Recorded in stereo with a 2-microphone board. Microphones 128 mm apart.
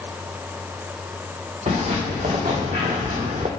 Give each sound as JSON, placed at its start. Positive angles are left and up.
{"t": 1.7, "sound": "footsteps", "side_deg": -75, "distance_m": 2.5}